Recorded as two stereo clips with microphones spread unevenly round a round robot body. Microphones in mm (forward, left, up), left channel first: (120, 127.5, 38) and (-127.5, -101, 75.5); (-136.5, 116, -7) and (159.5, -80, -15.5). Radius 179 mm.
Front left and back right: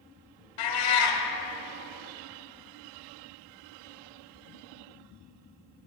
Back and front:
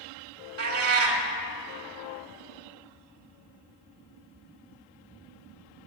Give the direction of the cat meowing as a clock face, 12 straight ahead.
11 o'clock.